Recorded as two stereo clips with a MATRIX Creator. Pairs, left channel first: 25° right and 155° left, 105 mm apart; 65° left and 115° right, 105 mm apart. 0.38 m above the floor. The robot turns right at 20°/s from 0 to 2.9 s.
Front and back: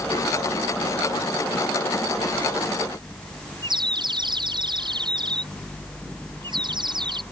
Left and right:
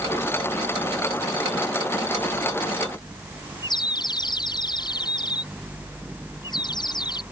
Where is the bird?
115° left.